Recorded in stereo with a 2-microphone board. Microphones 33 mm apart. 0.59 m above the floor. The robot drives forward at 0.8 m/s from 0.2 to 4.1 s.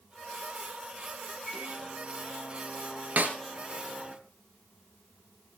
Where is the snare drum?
60° right (ahead or behind), 2.5 m.